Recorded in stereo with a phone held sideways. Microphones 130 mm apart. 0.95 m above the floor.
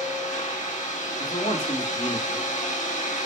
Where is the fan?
75° left (ahead or behind), 1.1 m.